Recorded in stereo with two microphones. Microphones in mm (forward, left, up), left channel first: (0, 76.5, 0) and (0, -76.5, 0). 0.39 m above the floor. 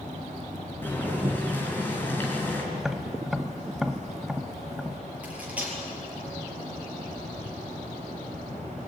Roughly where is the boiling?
Centre.